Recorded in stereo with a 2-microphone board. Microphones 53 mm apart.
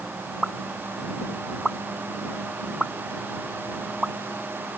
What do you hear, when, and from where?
0.4 s a pop: 5° right (ahead or behind)